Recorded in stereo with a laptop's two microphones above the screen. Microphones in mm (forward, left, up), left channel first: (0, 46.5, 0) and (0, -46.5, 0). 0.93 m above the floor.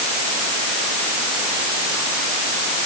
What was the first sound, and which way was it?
Only background noise.